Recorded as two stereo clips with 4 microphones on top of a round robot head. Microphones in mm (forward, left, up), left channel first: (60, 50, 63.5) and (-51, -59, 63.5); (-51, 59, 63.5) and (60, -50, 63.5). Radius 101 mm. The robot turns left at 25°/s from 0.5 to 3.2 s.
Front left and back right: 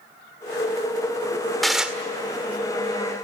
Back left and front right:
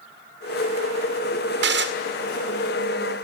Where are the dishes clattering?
45° right, 1.9 m; by 1.9 s 50° right, 1.9 m.